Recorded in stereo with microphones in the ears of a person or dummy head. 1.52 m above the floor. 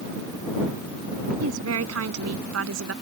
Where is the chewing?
I don't hear chewing.